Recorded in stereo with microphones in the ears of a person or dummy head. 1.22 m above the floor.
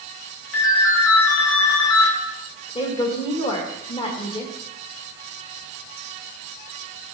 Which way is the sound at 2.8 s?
25° left (ahead or behind).